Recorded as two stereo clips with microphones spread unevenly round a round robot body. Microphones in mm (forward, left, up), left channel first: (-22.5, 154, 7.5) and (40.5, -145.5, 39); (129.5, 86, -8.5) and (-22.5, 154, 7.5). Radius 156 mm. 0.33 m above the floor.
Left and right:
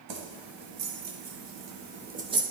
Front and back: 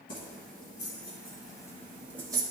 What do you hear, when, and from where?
0.1 s keys jangling: 65° right, 1.6 m; by 2.4 s 155° right, 0.7 m